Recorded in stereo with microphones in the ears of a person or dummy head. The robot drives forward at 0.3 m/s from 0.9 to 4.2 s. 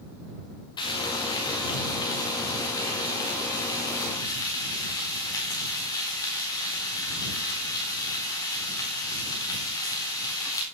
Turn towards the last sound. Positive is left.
turn(degrees=20)  # may be behind; listen again after turning